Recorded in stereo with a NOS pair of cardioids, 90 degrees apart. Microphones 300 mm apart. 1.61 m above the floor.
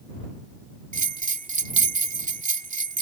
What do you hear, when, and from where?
0.9 s a bell: 25° right